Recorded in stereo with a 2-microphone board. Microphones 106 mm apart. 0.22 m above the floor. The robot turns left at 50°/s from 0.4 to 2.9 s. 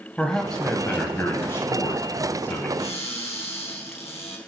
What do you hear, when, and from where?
0.2 s a man speaking: 10° left (ahead or behind), 1.0 m; by 2.7 s 20° left (ahead or behind), 1.0 m
2.8 s a cupboard door: 75° left (ahead or behind), 3 m; by 4.4 s 80° left, 3 m